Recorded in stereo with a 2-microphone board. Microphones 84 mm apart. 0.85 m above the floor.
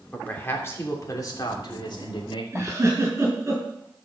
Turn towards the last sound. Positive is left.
turn(degrees=-30)  # may be behind; listen again after turning